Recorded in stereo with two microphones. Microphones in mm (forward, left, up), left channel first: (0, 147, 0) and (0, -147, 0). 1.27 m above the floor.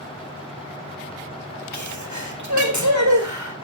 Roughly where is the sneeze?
Right.